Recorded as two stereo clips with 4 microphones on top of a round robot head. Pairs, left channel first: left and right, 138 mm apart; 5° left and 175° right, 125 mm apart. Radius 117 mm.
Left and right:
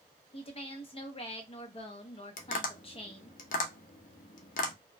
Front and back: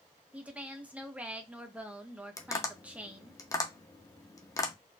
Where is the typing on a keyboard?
No typing on a keyboard in this recording.